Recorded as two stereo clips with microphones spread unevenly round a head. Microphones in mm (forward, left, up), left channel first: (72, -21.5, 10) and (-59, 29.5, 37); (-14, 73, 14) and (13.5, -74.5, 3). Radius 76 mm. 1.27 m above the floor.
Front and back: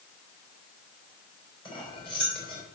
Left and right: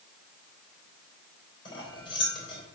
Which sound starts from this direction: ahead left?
Cutlery clinking, at 1.6 s.